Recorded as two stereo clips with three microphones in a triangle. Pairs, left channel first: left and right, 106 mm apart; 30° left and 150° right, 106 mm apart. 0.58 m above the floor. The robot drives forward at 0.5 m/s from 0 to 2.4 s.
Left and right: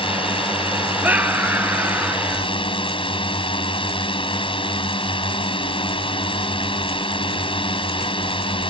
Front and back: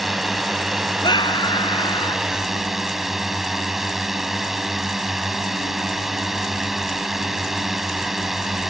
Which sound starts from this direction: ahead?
A scream, at 1.0 s.